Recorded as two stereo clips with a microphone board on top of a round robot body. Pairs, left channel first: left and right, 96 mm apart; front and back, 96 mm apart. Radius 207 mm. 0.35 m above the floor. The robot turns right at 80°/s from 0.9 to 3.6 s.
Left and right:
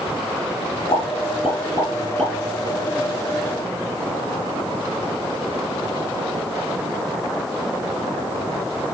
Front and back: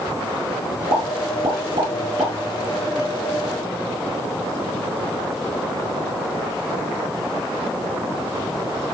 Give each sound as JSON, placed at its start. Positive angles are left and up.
{"t": 0.9, "sound": "a pop", "azimuth_deg": 155, "distance_m": 6.0}